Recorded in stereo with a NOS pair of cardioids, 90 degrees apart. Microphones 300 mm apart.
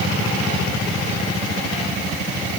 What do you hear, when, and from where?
Only background noise.